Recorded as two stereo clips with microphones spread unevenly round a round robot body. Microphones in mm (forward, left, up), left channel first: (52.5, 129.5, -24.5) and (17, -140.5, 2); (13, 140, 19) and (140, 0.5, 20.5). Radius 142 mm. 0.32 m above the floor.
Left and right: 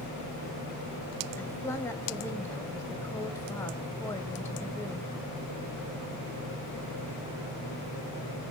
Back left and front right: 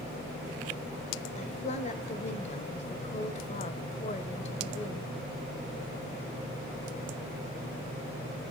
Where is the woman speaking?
150° left, 1.2 m.